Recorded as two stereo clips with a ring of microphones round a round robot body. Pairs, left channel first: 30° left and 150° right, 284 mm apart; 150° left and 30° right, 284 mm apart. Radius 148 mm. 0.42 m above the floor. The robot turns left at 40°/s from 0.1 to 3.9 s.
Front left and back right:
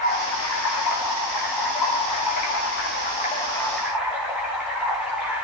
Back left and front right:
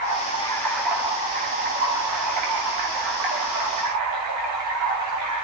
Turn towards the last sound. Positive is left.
turn(degrees=-65)